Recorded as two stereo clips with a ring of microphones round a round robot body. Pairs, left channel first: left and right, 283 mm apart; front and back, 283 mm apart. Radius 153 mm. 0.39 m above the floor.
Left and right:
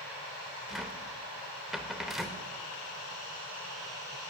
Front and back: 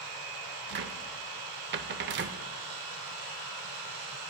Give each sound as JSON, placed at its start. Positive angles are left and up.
{"t": 0.7, "sound": "a cupboard door", "azimuth_deg": 180, "distance_m": 0.5}